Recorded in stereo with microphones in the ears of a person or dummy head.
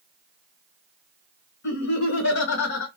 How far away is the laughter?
About 1.1 m.